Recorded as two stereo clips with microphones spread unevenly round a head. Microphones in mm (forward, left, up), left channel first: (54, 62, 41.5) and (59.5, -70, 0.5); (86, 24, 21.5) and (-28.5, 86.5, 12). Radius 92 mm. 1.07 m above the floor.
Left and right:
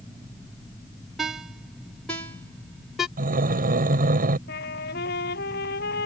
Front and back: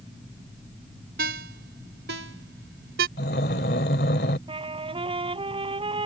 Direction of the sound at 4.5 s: 100° left.